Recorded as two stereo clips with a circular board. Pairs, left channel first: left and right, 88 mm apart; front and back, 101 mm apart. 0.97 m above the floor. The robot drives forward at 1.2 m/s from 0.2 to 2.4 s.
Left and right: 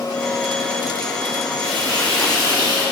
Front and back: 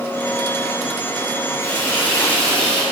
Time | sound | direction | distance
1.6 | frying | 60° right | 3.5 m